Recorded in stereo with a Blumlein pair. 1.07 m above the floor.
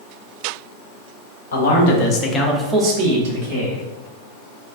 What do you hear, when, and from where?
1.5 s a man speaking: 60° left, 0.9 m; by 3.8 s 65° right, 1.1 m